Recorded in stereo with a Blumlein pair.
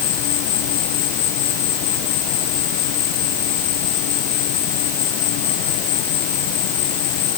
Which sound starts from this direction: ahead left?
An insect, at 0.0 s.